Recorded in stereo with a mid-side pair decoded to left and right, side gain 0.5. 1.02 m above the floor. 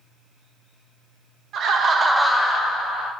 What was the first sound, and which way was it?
Laughter, 60° right.